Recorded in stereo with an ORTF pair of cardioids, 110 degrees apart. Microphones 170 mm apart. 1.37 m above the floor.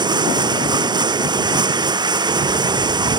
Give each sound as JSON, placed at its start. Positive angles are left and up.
{"t": 0.0, "sound": "running water", "azimuth_deg": -25}